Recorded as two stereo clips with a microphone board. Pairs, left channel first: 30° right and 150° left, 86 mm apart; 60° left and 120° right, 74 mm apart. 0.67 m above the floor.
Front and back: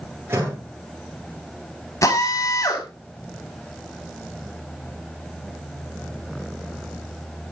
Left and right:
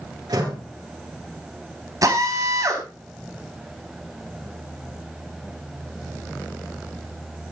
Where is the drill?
80° right, 5 m.